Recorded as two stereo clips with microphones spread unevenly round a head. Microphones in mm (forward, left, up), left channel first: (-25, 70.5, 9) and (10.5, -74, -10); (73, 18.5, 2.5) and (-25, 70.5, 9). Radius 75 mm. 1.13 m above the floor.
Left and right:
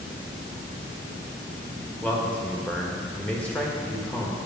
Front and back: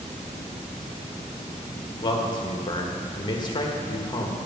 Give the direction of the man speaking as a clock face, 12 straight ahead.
11 o'clock.